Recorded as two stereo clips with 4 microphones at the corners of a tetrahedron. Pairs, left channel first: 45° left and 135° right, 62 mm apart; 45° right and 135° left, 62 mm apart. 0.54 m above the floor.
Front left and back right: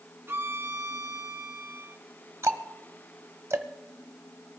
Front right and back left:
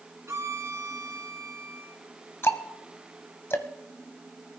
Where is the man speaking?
I don't hear a man speaking.